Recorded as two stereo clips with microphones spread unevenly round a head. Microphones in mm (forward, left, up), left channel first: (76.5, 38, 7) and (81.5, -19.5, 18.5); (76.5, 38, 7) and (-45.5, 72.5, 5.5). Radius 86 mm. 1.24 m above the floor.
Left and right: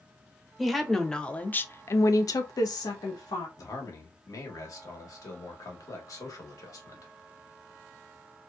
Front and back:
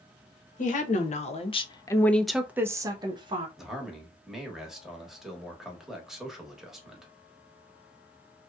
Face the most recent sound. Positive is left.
turn(degrees=75)